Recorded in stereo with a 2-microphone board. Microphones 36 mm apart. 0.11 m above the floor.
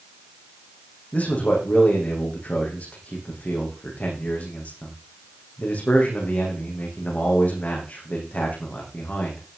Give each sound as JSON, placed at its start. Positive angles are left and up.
{"t": 1.1, "sound": "a man speaking", "side_deg": 45, "distance_m": 7.0}